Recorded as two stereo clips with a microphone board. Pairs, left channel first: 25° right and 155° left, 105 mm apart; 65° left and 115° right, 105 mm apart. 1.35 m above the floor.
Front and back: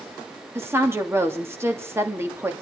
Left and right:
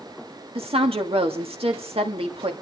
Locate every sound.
0.6 s a woman speaking: 135° right, 2.5 m